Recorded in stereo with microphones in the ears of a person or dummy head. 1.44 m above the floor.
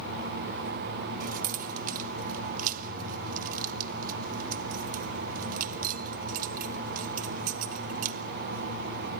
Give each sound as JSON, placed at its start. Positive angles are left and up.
{"t": 1.2, "sound": "keys jangling", "side_deg": -50, "distance_m": 1.2}